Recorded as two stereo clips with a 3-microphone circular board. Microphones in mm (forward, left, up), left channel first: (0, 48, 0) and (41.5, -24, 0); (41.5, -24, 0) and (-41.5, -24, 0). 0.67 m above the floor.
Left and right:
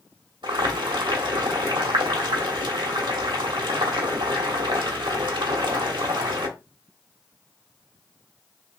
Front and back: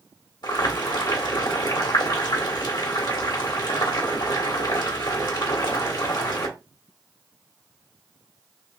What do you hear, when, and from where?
0.4 s boiling: 35° right, 1.0 m